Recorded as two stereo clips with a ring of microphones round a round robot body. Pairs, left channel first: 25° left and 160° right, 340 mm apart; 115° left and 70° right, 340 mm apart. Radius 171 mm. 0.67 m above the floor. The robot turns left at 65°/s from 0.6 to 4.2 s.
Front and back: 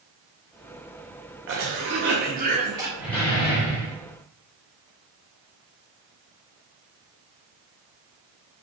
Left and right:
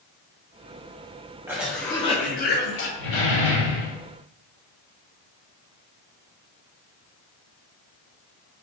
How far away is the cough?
About 0.6 m.